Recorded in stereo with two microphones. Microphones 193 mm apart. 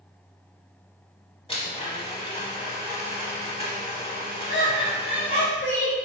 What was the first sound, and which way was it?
A blender, 30° left (ahead or behind).